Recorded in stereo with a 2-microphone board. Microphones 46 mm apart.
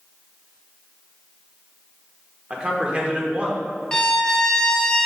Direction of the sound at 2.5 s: 25° right (ahead or behind).